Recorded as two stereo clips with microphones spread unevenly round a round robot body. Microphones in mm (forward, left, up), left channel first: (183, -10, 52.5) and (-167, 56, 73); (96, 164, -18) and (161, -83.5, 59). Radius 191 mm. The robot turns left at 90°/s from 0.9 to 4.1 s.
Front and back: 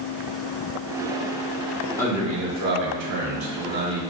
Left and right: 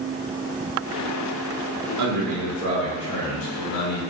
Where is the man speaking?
90° right, 3.5 m; by 4.0 s 85° left, 3.5 m.